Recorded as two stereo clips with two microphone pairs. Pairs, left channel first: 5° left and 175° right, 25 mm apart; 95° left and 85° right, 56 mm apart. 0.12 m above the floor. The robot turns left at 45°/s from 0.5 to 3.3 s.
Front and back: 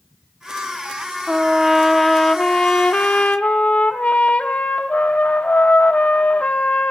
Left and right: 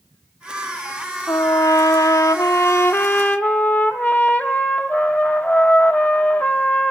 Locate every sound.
1.3 s a trumpet: 125° left, 1.3 m; by 6.9 s 35° left, 1.3 m